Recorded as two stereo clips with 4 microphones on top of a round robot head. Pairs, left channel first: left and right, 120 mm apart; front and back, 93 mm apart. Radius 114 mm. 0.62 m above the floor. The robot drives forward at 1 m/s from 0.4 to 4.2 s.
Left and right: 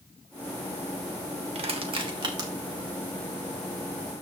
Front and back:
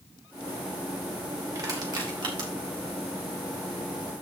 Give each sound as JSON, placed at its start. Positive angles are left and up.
{"t": 1.6, "sound": "crushing", "azimuth_deg": -125, "distance_m": 1.4}